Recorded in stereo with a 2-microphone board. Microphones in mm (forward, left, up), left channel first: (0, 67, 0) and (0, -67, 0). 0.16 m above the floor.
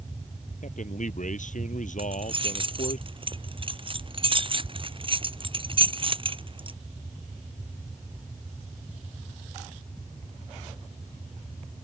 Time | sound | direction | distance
0.6 | a man speaking | 70° left (ahead or behind) | ?
2.0 | keys jangling | 40° right (ahead or behind) | ?